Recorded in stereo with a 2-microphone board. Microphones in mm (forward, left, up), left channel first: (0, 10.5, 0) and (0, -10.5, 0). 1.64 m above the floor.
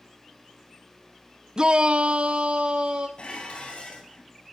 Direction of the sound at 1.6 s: 35° right (ahead or behind).